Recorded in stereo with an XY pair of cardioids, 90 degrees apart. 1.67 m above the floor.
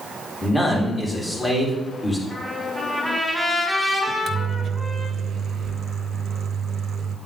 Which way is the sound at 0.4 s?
20° left.